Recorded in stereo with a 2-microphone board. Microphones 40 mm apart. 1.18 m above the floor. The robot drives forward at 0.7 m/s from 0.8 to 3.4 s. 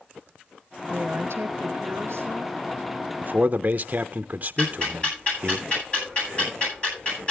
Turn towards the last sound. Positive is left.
turn(degrees=30)  # may be behind; listen again after turning